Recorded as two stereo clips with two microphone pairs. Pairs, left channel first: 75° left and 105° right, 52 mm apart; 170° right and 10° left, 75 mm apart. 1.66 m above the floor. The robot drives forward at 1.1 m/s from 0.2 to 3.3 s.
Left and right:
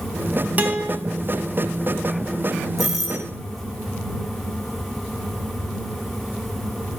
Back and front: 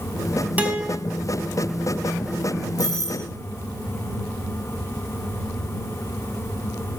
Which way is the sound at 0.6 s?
55° right.